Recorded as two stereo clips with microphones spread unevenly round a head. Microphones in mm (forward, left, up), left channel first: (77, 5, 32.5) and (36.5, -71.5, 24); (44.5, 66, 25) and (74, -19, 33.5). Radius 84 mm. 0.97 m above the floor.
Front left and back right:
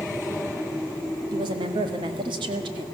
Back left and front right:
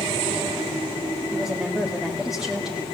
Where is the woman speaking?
160° right, 1.7 m.